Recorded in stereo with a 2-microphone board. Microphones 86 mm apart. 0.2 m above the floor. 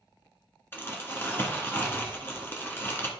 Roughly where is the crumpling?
Left.